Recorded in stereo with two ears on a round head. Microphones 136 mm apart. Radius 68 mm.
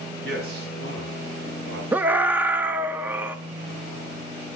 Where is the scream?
10° right (ahead or behind), 0.8 m.